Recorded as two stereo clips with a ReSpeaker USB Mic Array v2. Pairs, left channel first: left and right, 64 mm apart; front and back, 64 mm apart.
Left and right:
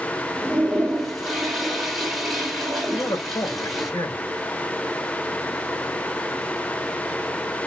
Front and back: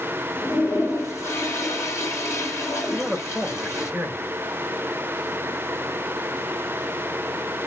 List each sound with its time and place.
0.4 s a toilet flushing: straight ahead, 1.3 m
2.9 s a man speaking: 85° left, 2.5 m